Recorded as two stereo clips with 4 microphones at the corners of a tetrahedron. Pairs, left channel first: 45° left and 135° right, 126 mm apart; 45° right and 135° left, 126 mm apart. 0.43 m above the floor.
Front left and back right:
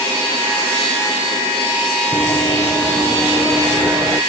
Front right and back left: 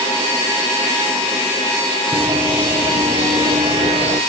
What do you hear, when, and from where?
2.1 s running footsteps: 90° left, 1.2 m; by 4.2 s 150° left, 1.7 m